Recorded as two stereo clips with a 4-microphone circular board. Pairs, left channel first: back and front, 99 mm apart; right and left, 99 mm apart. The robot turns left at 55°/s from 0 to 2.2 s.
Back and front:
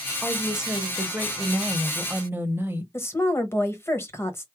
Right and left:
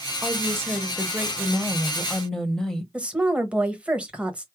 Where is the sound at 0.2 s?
95° left, 0.9 m; by 2.8 s 15° right, 0.9 m.